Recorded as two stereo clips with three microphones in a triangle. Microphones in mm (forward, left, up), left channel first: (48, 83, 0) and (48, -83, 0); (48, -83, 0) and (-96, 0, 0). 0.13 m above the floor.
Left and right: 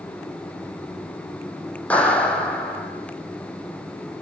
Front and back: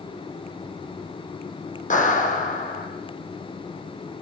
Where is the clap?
10° left, 5.5 m.